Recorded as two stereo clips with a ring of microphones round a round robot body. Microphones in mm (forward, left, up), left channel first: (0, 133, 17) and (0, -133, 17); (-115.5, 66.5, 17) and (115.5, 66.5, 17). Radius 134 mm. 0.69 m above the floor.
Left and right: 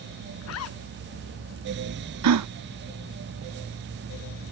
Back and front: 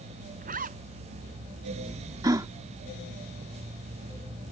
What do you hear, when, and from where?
0.4 s a zipper: 55° left
2.2 s a gasp: 75° right